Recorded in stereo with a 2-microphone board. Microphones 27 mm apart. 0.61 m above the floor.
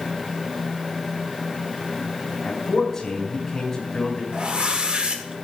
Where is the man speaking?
20° left (ahead or behind), 5 m.